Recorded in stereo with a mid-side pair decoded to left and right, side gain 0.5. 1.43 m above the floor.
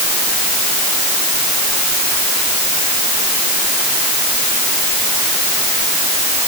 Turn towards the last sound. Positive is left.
No sound to turn to.